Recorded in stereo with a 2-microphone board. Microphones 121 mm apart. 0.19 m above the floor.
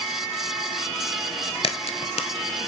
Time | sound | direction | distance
1.6 | a crack | 55° left (ahead or behind) | 0.6 m